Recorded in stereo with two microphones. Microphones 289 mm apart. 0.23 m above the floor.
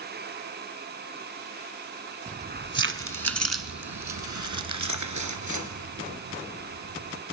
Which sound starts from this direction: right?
Keys jangling, at 2.3 s.